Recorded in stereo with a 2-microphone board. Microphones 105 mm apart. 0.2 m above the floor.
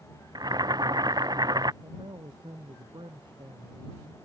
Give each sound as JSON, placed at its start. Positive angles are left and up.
{"t": 0.3, "sound": "boiling", "side_deg": -40}
{"t": 1.8, "sound": "a man speaking", "side_deg": -50}